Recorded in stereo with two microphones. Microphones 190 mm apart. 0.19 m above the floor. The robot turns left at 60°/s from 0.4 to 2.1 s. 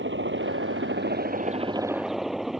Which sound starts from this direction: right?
A helicopter, at 0.0 s.